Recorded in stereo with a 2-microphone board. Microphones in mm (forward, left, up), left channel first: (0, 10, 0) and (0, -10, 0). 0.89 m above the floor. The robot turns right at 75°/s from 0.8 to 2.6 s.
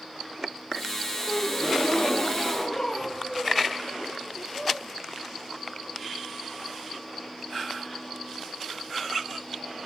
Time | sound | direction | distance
1.3 | a gasp | 50° left | 0.6 m